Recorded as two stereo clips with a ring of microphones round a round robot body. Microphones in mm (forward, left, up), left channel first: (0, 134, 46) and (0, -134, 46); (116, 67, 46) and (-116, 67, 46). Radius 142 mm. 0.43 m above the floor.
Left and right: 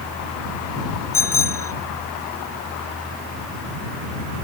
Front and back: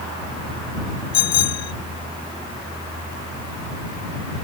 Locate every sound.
1.1 s a bicycle bell: 10° left